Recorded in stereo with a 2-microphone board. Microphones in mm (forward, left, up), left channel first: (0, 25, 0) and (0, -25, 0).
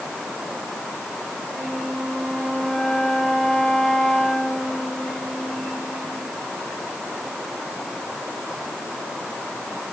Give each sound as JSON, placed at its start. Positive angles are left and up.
{"t": 1.5, "sound": "a flute", "side_deg": 10, "distance_m": 4.5}